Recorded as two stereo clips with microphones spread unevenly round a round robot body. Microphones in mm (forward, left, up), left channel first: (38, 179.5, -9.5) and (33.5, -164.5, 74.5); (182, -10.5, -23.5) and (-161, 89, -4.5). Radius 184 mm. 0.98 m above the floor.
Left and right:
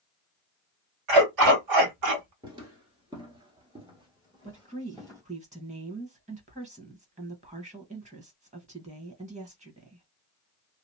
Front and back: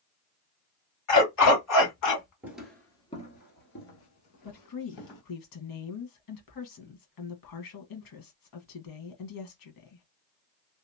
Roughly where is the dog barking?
Right.